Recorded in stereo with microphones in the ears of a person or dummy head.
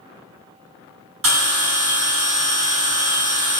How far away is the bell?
About 1.9 m.